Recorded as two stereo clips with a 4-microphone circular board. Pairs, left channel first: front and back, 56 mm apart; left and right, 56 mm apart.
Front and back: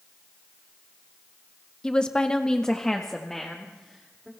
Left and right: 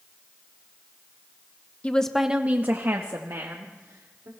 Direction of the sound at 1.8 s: 55° left.